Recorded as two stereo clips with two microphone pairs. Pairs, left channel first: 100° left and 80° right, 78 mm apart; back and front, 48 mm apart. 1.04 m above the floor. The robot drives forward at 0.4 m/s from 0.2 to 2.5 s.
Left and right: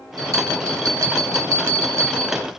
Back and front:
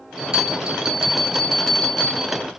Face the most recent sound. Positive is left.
turn(degrees=-115)